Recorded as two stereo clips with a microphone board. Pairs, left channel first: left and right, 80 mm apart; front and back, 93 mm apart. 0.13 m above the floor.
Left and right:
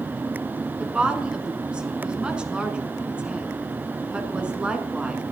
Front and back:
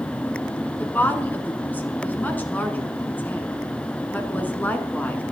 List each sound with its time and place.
0.8 s a woman speaking: 35° right, 1.5 m